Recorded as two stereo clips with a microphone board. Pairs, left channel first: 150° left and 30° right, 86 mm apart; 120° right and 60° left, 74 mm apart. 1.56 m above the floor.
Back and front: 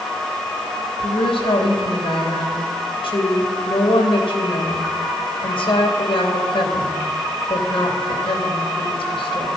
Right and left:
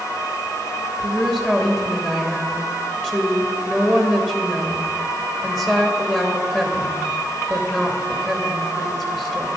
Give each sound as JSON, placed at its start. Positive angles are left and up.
{"t": 1.0, "sound": "a woman speaking", "azimuth_deg": 160, "distance_m": 2.5}